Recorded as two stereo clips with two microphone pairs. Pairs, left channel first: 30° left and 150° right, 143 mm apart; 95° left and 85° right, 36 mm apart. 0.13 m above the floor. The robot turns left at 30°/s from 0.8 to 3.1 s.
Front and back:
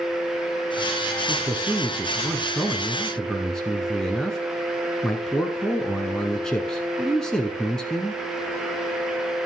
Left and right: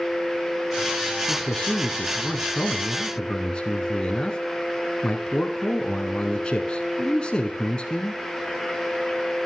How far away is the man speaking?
About 1.4 m.